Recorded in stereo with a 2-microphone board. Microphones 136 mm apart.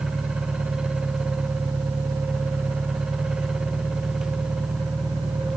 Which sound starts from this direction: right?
An engine running, at 0.0 s.